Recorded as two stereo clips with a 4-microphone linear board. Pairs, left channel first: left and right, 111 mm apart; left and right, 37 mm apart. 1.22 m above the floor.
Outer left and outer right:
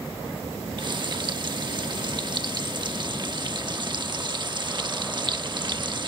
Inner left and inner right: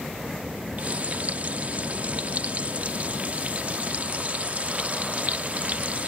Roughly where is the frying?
Right.